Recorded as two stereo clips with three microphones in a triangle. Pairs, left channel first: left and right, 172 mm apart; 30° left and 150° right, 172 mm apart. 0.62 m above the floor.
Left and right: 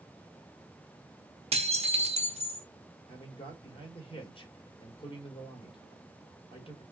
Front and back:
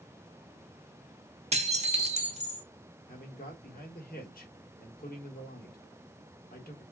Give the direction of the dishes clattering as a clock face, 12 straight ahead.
4 o'clock.